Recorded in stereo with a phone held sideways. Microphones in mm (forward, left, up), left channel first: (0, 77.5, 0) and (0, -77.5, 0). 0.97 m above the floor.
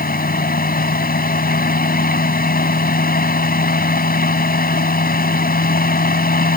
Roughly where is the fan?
Left.